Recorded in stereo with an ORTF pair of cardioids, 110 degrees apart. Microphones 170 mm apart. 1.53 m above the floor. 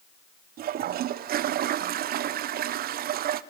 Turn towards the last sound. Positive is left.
turn(degrees=-65)